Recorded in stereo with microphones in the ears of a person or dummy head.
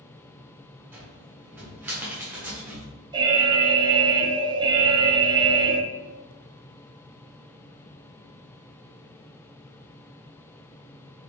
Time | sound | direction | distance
0.9 | a cupboard door | 10° right (ahead or behind) | 1.2 m
3.1 | an alarm | 20° right (ahead or behind) | 0.5 m